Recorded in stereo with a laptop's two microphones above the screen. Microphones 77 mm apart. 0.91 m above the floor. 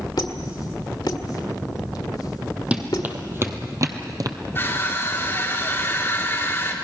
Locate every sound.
0.2 s a squeak: 65° left (ahead or behind), 1.8 m
2.7 s running footsteps: 15° right (ahead or behind), 1.7 m; by 4.4 s 55° right (ahead or behind), 1.5 m
4.5 s crushing: 30° left (ahead or behind), 2 m